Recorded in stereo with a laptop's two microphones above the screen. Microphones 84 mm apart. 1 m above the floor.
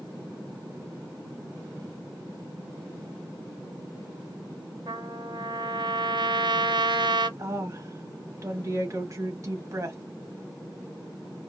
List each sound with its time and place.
4.9 s a trumpet: 65° right (ahead or behind), 0.5 m
7.4 s a woman speaking: 40° right (ahead or behind), 1.1 m